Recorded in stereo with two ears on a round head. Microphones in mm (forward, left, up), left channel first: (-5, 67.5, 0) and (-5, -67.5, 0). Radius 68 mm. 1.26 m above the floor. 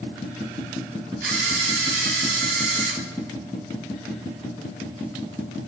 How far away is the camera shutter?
About 5 m.